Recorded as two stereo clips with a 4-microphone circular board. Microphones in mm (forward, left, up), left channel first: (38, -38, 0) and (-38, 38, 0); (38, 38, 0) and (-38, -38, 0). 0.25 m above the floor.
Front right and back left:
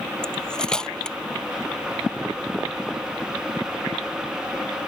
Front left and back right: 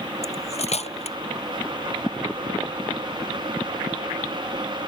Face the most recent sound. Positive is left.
turn(degrees=40)